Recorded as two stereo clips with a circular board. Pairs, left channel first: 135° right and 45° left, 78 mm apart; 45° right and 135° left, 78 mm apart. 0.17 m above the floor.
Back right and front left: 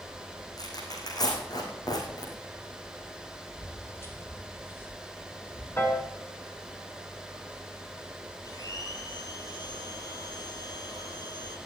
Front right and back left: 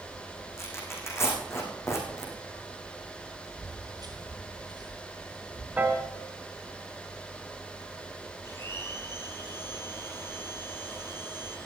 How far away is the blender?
About 4 m.